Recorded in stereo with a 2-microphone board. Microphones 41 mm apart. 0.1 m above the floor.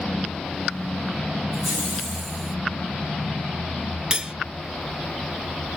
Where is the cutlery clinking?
20° right (ahead or behind), 0.6 m.